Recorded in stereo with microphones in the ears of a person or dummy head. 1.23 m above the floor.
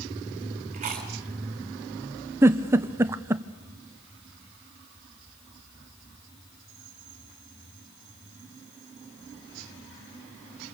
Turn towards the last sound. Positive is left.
turn(degrees=-10)  # may be behind; listen again after turning